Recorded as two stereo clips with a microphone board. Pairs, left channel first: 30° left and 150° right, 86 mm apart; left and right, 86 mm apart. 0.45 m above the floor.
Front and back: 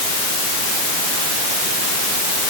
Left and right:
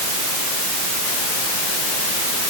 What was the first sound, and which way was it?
Only background noise.